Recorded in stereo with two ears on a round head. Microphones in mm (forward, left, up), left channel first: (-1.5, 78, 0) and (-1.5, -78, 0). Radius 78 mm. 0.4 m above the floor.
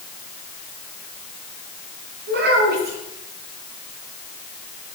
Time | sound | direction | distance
2.3 | a child speaking | 60° right (ahead or behind) | 4 m